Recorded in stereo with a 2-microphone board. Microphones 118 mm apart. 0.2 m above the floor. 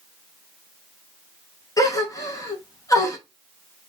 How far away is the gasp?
About 0.7 m.